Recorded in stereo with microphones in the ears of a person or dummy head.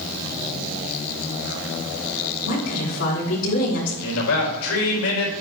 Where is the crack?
I don't hear a crack.